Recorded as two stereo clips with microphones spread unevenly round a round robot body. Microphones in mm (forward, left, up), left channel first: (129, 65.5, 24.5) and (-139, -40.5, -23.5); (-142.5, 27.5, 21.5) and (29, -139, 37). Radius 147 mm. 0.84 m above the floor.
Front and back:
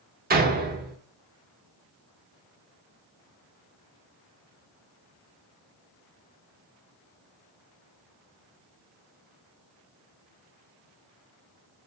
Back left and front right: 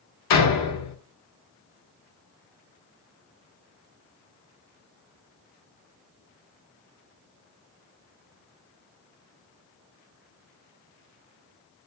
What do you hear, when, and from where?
0.3 s a door slam: 140° left, 1.1 m